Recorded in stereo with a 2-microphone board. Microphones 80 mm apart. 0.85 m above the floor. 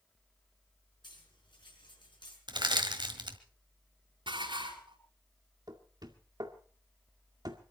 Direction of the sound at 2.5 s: 70° right (ahead or behind).